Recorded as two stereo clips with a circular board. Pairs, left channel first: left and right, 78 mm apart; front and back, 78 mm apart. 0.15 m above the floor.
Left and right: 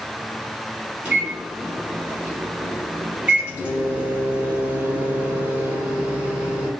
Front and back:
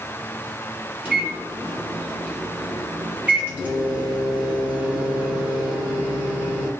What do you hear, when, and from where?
1.1 s a microwave: 135° right, 1.0 m